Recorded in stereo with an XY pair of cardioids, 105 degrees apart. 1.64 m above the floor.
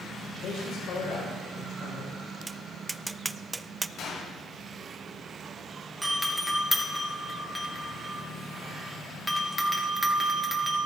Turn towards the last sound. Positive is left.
turn(degrees=-5)